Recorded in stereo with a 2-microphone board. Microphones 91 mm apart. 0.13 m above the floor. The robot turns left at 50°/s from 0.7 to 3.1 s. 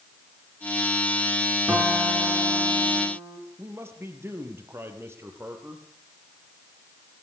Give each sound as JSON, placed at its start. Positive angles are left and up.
{"t": 1.7, "sound": "a guitar", "azimuth_deg": -20, "distance_m": 5.5}
{"t": 3.6, "sound": "a man speaking", "side_deg": -30, "distance_m": 4.0}